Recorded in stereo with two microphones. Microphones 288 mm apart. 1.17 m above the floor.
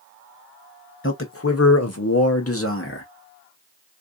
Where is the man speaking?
45° left (ahead or behind), 0.9 m; by 3.1 s 40° left (ahead or behind), 1.1 m.